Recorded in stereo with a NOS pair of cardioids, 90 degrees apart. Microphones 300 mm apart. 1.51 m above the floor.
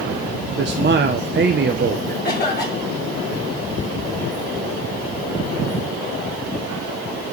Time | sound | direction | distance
0.6 | a man speaking | 35° right | 1.1 m
2.2 | a cough | 35° left | 7.5 m